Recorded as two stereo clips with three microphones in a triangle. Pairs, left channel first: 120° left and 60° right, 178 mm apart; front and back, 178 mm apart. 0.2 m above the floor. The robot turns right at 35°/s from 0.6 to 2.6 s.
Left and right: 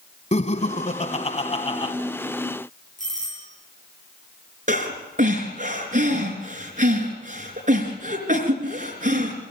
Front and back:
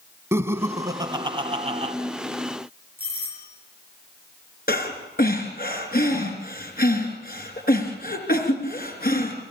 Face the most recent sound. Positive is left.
turn(degrees=-20)